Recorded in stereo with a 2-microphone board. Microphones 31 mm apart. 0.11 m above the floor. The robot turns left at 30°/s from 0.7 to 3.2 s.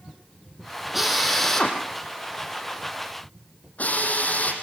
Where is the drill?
5° right (ahead or behind), 4.5 m; by 4.5 s 55° left (ahead or behind), 4.5 m.